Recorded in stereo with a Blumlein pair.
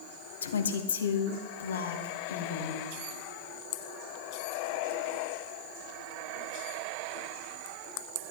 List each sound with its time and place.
0.4 s a woman speaking: 65° left, 1.5 m